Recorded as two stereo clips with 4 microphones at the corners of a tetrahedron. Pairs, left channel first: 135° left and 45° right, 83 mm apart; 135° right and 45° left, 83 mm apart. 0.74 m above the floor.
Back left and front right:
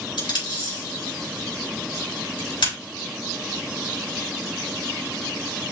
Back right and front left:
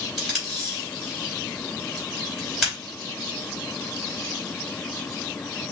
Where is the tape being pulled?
130° left, 4 m.